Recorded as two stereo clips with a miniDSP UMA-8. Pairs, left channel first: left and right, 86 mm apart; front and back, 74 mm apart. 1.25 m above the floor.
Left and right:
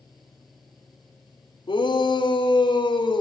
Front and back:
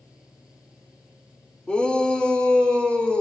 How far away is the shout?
About 4.5 m.